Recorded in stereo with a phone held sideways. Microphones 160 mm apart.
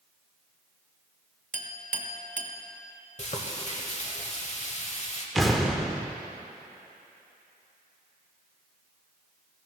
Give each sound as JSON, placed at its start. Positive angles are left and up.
{"t": 1.5, "sound": "a clink", "side_deg": -55, "distance_m": 0.7}
{"t": 3.2, "sound": "frying", "side_deg": 50, "distance_m": 1.0}
{"t": 5.3, "sound": "an explosion", "side_deg": 0, "distance_m": 0.7}